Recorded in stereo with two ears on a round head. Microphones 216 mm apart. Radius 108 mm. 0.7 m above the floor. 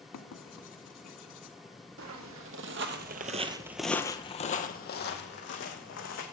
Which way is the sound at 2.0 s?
60° right (ahead or behind).